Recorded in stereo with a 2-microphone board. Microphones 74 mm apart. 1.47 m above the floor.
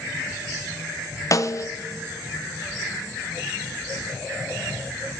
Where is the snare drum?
50° left (ahead or behind), 0.5 m.